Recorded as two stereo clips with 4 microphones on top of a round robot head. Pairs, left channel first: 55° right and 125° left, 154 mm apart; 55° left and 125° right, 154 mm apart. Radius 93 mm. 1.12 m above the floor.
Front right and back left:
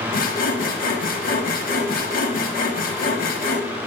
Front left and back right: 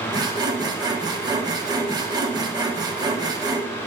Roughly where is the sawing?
Ahead right.